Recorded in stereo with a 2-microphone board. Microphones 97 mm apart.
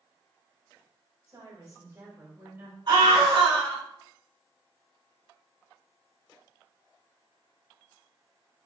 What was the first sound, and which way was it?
A woman speaking, 45° right (ahead or behind).